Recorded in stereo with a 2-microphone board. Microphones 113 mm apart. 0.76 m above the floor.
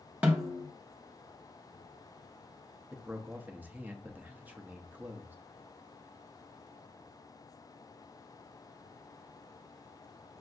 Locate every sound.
0.2 s a snare drum: 15° right (ahead or behind), 1.0 m
2.9 s a man speaking: 15° right (ahead or behind), 0.6 m